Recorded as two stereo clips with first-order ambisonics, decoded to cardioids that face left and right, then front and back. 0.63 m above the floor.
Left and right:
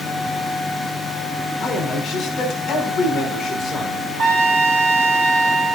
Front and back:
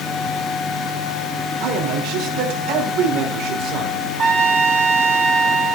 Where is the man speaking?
165° left, 5 m.